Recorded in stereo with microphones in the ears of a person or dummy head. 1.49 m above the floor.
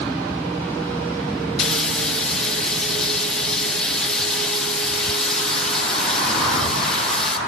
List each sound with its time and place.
1.6 s frying: 5° left (ahead or behind), 0.9 m